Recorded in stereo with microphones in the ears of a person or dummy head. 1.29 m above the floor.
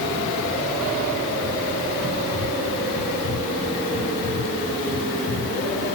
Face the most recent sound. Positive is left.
No sound to turn to.